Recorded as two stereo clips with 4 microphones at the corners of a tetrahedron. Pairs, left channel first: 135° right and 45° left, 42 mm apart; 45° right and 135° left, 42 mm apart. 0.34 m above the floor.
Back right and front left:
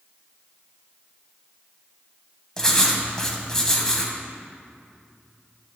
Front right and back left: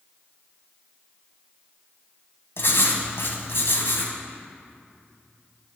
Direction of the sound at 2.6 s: 60° right.